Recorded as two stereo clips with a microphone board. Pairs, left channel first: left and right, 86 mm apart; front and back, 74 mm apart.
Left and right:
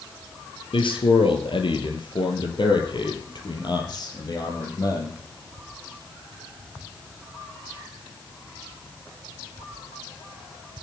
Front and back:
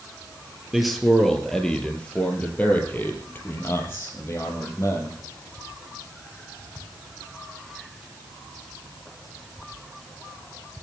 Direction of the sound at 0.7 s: 95° left.